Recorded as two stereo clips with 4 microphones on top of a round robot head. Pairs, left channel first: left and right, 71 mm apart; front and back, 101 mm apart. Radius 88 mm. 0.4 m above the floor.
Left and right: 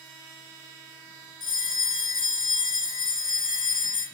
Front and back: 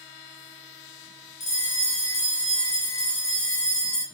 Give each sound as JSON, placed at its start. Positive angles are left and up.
{"t": 1.4, "sound": "a bell", "azimuth_deg": -5, "distance_m": 1.6}